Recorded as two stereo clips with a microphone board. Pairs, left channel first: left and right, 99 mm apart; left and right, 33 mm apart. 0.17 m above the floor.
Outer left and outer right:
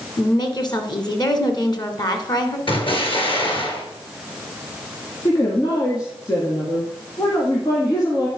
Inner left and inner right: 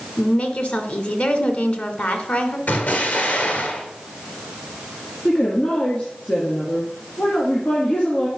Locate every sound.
0.2 s a woman speaking: 45° left (ahead or behind), 1.5 m
2.7 s an explosion: 65° left (ahead or behind), 2 m
5.2 s a woman speaking: 45° left (ahead or behind), 1.9 m